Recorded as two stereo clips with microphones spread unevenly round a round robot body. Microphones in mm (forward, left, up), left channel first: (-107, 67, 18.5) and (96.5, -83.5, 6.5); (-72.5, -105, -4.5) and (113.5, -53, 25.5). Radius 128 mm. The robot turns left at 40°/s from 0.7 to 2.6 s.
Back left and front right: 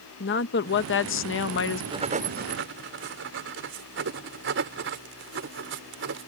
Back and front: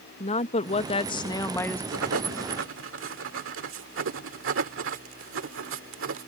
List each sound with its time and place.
0.2 s a woman speaking: 165° left; by 1.8 s 125° left
1.9 s writing: 35° left; by 6.3 s 5° left